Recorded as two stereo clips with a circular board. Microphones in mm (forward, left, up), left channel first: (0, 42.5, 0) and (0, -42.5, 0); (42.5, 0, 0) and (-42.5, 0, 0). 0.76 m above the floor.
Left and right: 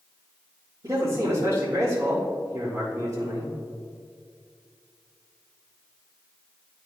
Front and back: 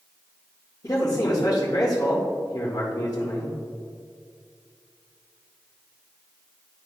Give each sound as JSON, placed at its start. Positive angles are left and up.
{"t": 0.8, "sound": "a man speaking", "azimuth_deg": -45, "distance_m": 2.0}